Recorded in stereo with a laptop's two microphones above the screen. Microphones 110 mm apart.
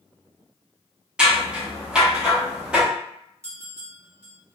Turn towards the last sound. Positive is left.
turn(degrees=10)  # may be behind; listen again after turning